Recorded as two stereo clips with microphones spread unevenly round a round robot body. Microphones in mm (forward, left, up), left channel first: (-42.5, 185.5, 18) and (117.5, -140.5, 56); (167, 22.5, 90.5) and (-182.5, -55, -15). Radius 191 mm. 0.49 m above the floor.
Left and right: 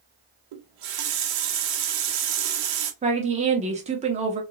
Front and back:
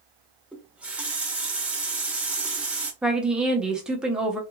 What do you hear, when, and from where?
0.5 s a running tap: 90° right, 0.7 m
3.0 s a woman speaking: 125° right, 0.7 m